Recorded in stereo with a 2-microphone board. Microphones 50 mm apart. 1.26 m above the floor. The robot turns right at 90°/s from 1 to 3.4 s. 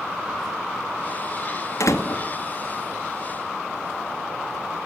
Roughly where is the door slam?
Left.